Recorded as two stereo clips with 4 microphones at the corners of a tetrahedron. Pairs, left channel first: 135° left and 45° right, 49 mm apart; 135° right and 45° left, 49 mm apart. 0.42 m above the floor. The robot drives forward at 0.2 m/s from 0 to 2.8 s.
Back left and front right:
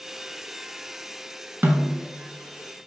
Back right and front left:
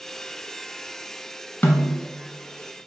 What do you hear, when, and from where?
1.6 s a snare drum: 90° right, 0.7 m; by 2.0 s 95° right, 0.7 m